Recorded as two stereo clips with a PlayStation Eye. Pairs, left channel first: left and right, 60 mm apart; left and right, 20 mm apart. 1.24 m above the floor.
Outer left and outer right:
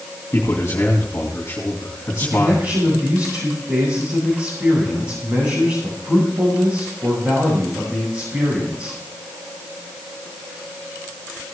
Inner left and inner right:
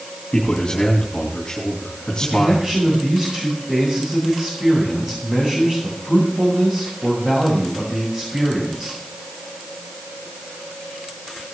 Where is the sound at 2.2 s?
40° right (ahead or behind), 5.5 m.